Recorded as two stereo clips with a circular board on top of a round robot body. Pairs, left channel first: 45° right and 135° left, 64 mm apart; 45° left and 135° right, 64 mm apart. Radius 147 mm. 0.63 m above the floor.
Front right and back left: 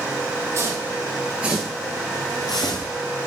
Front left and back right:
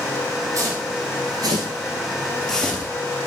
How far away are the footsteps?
About 1.9 m.